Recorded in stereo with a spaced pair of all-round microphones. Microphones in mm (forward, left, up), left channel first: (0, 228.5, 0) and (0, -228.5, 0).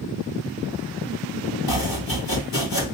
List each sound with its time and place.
1.7 s chopping: 45° left (ahead or behind), 1.7 m